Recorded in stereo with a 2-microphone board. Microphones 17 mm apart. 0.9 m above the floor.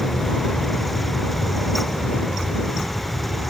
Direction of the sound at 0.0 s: 45° left (ahead or behind).